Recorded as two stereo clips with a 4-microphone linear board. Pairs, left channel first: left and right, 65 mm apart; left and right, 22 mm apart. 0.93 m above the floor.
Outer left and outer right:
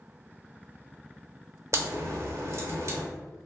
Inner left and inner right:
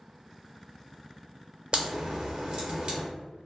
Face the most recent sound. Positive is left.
turn(degrees=-55)  # may be behind; listen again after turning